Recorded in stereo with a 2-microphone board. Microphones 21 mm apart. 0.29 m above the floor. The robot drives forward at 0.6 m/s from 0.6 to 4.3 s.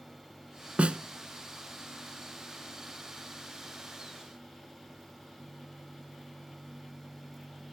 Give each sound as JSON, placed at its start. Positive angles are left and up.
{"t": 0.8, "sound": "a snare drum", "side_deg": -75, "distance_m": 0.6}